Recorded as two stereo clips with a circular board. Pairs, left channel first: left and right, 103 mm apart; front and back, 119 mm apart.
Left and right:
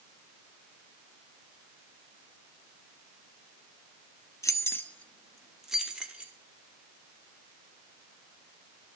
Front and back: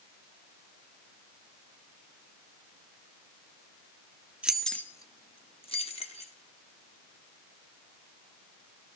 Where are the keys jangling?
110° left, 0.6 m; by 6.3 s 15° right, 1.3 m.